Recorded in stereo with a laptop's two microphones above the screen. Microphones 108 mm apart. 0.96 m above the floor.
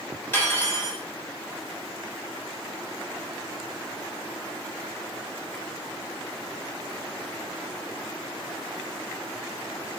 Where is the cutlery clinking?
20° left (ahead or behind), 1.6 m.